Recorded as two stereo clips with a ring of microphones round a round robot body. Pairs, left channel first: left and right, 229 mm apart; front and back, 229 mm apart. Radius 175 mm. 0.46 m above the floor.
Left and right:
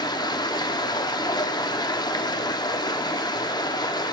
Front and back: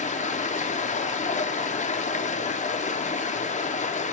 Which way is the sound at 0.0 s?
30° left.